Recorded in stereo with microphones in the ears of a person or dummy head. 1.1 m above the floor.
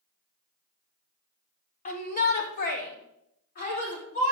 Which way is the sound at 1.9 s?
35° left (ahead or behind).